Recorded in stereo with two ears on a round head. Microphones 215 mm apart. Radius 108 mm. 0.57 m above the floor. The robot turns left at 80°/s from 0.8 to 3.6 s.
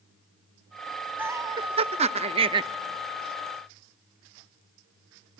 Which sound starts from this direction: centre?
Laughter, at 1.2 s.